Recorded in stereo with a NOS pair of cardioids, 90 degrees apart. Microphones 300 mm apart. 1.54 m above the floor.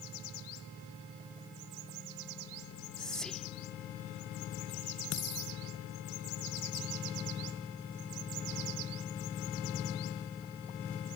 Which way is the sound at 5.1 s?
60° left.